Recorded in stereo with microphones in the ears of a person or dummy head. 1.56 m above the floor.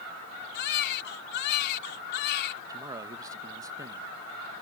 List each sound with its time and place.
0.5 s a baby crying: 60° left (ahead or behind)
2.7 s a man speaking: 15° right (ahead or behind)